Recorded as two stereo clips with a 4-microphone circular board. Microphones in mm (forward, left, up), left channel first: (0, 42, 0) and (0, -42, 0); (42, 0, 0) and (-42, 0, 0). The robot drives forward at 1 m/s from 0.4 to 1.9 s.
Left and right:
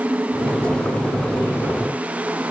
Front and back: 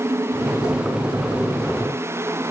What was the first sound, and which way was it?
Only background noise.